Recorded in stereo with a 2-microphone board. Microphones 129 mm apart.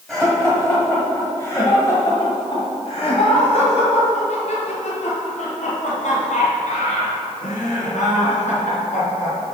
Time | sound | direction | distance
0.1 | laughter | centre (ahead or behind) | 1.6 m